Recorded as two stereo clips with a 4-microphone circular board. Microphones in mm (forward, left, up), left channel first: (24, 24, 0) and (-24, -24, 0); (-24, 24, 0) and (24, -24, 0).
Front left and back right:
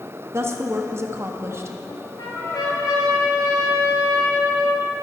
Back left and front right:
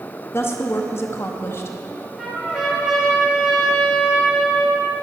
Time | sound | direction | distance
0.3 | a woman speaking | straight behind | 0.8 m
1.9 | a trumpet | 35° left | 1.8 m